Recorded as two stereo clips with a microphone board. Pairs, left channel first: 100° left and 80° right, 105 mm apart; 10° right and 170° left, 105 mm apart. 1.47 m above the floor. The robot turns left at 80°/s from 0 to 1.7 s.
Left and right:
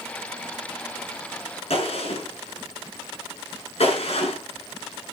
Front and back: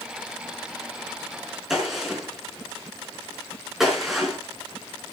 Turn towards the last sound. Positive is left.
turn(degrees=80)